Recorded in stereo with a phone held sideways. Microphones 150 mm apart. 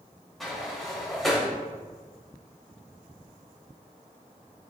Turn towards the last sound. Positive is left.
turn(degrees=0)  # may be behind; listen again after turning